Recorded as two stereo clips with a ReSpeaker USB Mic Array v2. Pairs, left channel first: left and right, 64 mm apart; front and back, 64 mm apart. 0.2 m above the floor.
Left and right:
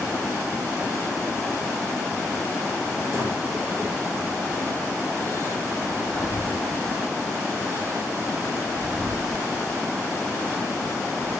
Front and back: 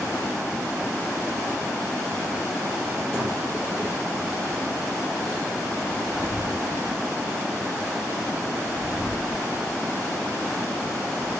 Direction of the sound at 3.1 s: 125° right.